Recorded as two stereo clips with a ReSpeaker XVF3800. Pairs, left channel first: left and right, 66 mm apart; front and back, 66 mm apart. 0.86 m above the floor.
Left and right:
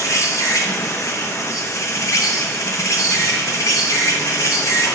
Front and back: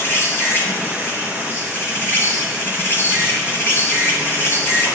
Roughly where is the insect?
Ahead left.